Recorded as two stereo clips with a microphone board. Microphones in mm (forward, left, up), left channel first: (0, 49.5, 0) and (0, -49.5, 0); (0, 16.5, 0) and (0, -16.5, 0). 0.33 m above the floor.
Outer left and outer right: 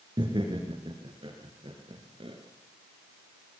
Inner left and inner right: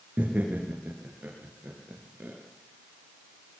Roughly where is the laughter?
Right.